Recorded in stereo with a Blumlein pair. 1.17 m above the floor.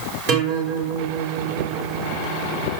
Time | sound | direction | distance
0.3 | a guitar | 40° right | 5.5 m